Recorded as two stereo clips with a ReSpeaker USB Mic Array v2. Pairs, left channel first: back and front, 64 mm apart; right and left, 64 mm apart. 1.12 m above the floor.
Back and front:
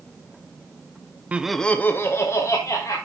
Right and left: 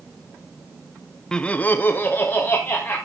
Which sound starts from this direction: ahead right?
Laughter, at 1.3 s.